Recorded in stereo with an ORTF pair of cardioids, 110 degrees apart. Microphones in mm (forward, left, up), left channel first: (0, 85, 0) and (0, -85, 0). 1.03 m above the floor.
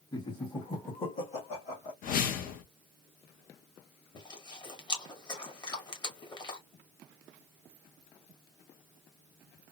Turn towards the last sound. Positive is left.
turn(degrees=25)